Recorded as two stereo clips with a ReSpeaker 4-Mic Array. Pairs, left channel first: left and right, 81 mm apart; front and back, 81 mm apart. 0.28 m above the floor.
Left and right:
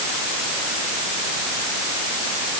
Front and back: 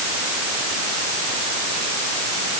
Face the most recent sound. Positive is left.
No sound to turn to.